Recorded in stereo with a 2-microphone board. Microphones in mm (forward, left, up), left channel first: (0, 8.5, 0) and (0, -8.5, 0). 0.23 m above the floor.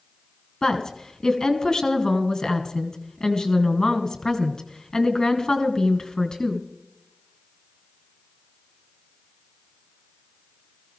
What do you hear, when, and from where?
0.6 s a woman speaking: 45° left (ahead or behind), 2.5 m